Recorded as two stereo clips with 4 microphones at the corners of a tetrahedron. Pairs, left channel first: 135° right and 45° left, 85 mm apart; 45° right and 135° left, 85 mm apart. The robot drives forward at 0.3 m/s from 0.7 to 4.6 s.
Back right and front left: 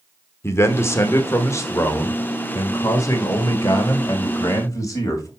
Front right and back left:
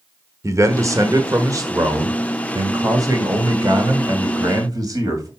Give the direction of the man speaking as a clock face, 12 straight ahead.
6 o'clock.